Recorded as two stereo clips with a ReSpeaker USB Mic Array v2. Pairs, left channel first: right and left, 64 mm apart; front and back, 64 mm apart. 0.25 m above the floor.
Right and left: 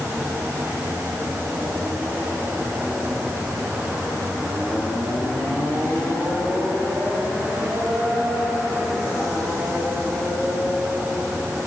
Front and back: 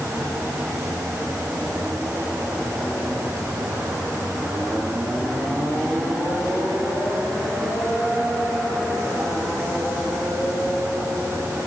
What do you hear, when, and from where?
Only background noise.